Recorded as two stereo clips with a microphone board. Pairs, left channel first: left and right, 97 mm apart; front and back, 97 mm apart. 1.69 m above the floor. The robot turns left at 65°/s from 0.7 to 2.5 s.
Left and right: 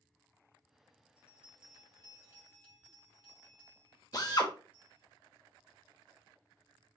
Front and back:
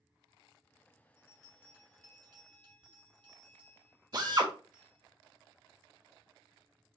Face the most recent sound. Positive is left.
turn(degrees=135)